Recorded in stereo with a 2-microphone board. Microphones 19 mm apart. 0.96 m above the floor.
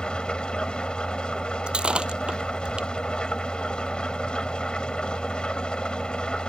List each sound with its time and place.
0.0 s an engine running: 50° left (ahead or behind)
1.7 s breaking glass: 60° right (ahead or behind)